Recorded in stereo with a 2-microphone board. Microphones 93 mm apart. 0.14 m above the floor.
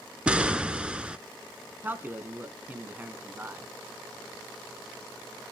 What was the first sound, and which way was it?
An explosion, 10° right (ahead or behind).